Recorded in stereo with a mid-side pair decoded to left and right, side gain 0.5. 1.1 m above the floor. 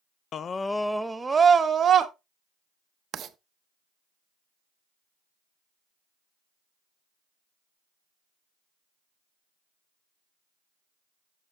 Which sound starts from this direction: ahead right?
Writing, at 3.1 s.